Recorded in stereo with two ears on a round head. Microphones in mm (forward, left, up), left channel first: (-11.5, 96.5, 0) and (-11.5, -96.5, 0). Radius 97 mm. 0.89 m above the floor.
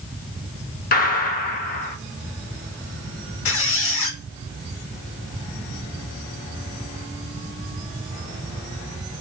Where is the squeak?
65° left (ahead or behind), 0.9 m.